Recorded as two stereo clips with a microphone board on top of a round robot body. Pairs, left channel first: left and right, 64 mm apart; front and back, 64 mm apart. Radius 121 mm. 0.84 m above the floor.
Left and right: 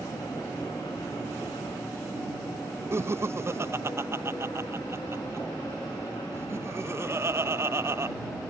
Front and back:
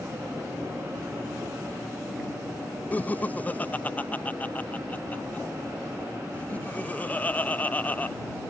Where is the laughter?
60° right.